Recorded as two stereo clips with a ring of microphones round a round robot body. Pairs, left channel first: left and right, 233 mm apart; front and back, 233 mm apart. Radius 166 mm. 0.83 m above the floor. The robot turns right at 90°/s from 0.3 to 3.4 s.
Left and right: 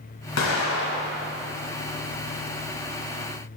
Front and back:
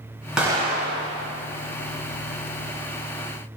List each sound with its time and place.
0.4 s an explosion: 95° left, 1.7 m; by 1.3 s 175° left, 1.7 m